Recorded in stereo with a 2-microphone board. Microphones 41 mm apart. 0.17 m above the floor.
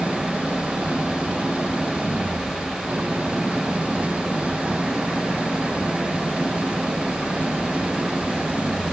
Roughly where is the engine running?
Right.